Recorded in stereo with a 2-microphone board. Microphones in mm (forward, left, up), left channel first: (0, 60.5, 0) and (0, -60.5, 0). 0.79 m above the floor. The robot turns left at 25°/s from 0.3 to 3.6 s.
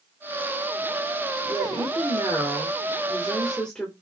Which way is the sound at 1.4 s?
135° right.